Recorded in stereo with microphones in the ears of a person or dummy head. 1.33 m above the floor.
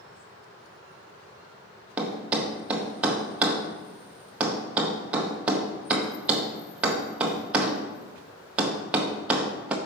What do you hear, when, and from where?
2.0 s a thud: 5° right (ahead or behind), 0.6 m